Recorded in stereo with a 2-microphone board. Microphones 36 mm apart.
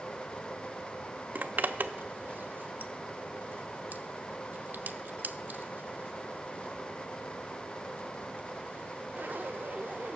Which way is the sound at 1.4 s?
55° right (ahead or behind).